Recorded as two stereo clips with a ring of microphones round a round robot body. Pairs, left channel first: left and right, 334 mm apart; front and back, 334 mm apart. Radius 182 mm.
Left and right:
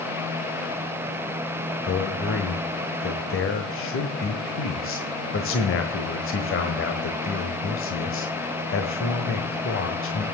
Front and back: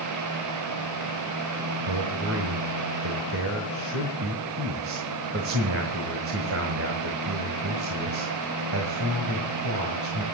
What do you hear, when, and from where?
1.8 s a man speaking: 135° left, 1.4 m